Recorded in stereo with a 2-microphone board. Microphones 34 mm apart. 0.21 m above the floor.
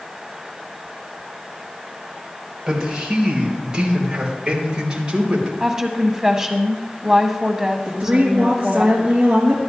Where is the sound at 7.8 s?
30° right (ahead or behind), 3.5 m.